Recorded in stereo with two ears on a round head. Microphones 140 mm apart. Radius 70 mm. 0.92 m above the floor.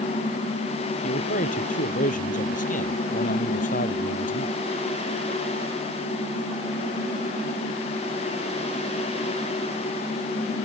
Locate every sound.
1.0 s a man speaking: 55° left (ahead or behind)